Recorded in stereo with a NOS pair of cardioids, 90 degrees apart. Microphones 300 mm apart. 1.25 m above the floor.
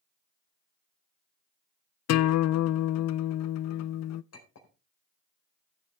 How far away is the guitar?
About 0.5 m.